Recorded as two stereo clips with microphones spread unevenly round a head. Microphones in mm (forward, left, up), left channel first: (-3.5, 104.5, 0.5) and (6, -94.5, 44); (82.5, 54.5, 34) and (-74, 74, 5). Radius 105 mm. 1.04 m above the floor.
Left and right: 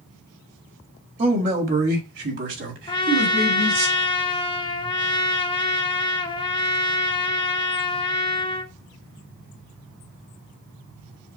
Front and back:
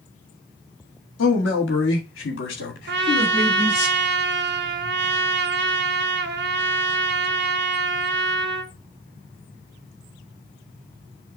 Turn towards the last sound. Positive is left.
turn(degrees=165)